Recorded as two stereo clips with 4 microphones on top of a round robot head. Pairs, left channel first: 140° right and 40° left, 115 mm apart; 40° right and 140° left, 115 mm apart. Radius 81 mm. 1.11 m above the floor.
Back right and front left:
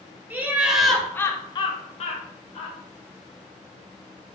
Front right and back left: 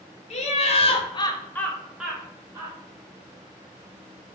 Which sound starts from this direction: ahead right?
Laughter, at 0.3 s.